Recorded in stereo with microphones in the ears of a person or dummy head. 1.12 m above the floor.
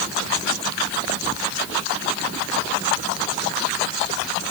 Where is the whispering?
I don't hear whispering.